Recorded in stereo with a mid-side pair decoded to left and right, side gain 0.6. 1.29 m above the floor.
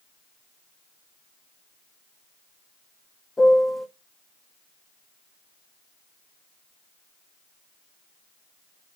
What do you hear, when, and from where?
3.4 s a piano: 15° left, 0.6 m